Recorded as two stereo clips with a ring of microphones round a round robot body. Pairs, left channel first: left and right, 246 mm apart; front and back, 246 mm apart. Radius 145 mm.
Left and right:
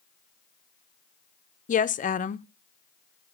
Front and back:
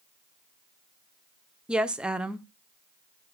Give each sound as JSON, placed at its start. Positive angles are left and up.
{"t": 1.7, "sound": "a woman speaking", "azimuth_deg": 95, "distance_m": 0.5}